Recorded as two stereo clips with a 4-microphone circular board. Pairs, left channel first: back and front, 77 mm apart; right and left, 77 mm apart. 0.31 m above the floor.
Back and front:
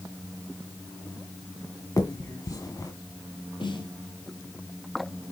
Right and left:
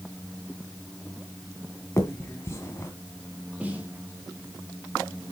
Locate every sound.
2.0 s a finger snap: 140° right, 1.8 m
3.6 s a snare drum: 165° left, 2.5 m